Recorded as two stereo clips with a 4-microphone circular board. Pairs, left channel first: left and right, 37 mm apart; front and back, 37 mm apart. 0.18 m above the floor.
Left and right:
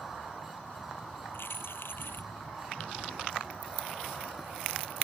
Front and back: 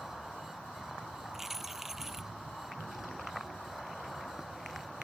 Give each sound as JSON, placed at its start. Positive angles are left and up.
{"t": 1.3, "sound": "keys jangling", "azimuth_deg": 100}